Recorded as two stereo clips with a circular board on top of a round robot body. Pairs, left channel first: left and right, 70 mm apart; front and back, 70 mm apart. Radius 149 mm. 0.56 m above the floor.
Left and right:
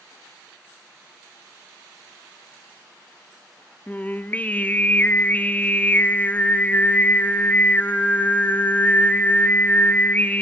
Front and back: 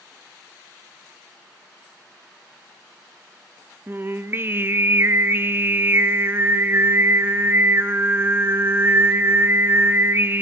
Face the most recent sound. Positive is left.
turn(degrees=145)